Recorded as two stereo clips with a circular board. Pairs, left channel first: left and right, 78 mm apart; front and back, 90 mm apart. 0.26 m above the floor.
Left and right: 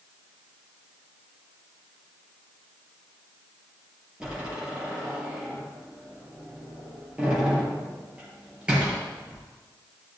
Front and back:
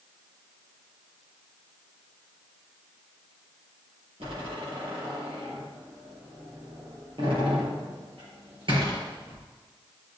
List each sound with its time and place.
4.2 s a door slam: 165° right, 5 m